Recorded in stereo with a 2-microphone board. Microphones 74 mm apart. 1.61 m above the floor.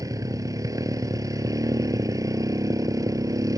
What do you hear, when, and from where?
0.0 s a motorcycle: 50° right (ahead or behind)